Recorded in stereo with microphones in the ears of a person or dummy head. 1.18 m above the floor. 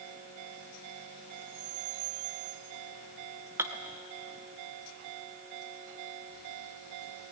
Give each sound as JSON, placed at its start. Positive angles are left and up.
{"t": 3.6, "sound": "dishes clattering", "side_deg": -10, "distance_m": 0.7}